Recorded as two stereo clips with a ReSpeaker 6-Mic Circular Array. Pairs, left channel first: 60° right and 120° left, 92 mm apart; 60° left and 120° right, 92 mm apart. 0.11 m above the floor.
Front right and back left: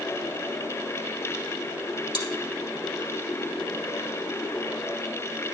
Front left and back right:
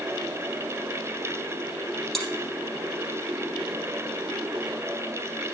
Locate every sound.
2.1 s chewing: 25° right, 2 m